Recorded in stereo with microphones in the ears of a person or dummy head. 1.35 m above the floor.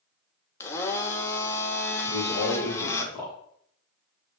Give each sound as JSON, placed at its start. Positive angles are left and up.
{"t": 0.6, "sound": "a blender", "side_deg": 20, "distance_m": 0.8}
{"t": 2.0, "sound": "a man speaking", "side_deg": 20, "distance_m": 2.5}